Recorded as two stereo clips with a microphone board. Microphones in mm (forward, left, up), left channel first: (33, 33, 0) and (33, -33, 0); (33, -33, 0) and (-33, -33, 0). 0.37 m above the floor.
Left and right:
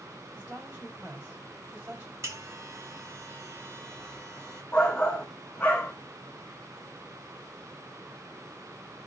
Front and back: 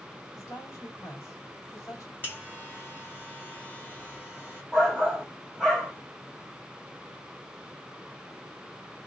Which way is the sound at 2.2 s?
55° right.